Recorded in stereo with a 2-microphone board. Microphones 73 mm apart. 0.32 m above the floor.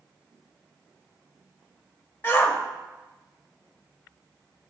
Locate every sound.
2.2 s a shout: 30° left (ahead or behind), 1.0 m